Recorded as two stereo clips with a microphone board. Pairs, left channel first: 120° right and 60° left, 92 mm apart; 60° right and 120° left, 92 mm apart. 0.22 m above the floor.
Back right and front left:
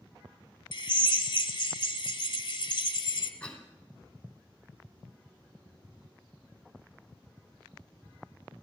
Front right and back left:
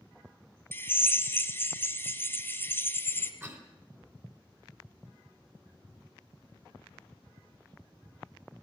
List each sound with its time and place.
0.7 s a drill: 120° right, 1.0 m
3.4 s a cough: 170° left, 1.9 m